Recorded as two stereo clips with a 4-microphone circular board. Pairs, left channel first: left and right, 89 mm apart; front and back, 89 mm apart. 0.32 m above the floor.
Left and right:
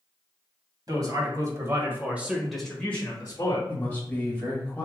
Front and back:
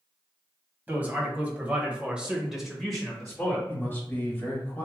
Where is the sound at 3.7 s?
40° left, 1.7 m.